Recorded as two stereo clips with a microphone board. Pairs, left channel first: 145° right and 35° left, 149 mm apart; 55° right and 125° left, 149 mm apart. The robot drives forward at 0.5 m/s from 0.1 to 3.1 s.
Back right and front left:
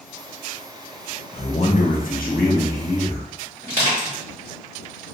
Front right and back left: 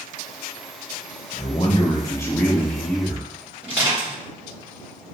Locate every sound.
1.3 s a man speaking: 95° right, 0.6 m; by 3.3 s 145° right, 1.1 m
3.6 s crushing: 155° right, 1.9 m